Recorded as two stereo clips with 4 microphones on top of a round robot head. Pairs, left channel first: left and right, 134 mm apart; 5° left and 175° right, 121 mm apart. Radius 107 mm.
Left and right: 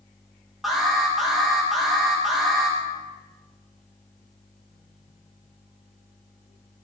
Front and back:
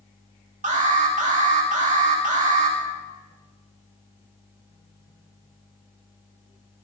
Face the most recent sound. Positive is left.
turn(degrees=180)